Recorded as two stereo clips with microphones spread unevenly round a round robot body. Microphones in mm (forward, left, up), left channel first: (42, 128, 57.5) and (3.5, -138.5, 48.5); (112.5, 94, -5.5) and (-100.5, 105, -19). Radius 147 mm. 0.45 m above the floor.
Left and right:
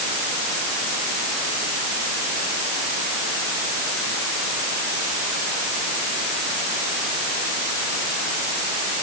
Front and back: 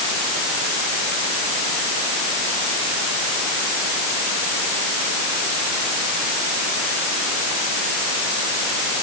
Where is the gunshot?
I don't hear a gunshot.